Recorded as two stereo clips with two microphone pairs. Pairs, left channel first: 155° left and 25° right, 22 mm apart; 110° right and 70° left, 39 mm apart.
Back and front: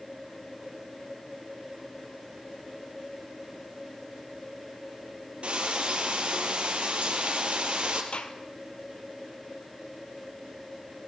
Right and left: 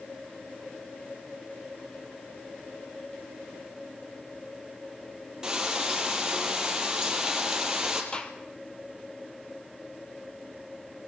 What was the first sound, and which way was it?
Frying, 5° right.